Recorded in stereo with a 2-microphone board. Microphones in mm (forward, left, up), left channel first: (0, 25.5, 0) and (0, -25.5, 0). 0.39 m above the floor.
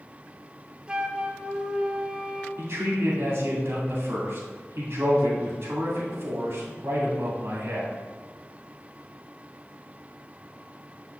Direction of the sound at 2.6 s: 55° right (ahead or behind).